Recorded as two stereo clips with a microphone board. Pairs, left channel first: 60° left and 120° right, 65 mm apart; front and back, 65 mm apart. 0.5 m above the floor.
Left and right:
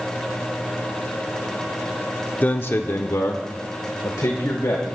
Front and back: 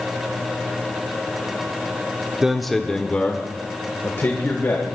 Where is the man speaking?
105° left, 0.8 m; by 5.0 s 40° left, 2 m.